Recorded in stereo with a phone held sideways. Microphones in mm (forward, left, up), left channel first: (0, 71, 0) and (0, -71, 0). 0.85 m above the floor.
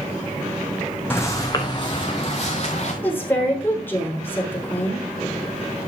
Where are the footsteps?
15° left (ahead or behind), 2 m; by 2.9 s 45° left (ahead or behind), 4 m.